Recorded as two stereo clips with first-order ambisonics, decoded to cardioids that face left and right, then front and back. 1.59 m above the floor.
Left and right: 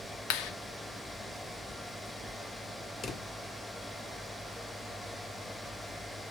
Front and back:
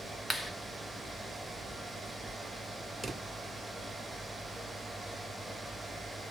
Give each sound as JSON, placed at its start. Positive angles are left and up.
{"t": 0.3, "sound": "a clap", "azimuth_deg": 80, "distance_m": 0.9}
{"t": 3.0, "sound": "a drawer", "azimuth_deg": 115, "distance_m": 0.7}